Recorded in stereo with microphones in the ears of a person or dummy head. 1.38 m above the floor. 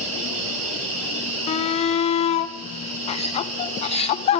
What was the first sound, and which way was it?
An insect, 85° right.